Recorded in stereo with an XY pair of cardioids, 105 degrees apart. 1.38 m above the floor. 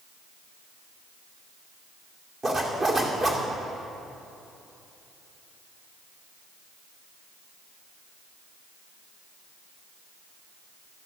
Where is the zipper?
40° right, 2 m.